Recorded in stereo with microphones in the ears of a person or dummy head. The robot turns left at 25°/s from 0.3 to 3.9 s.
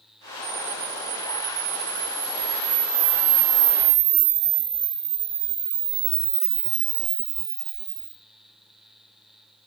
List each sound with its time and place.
0.4 s a camera shutter: 40° right, 0.6 m; by 8.1 s 125° right, 0.6 m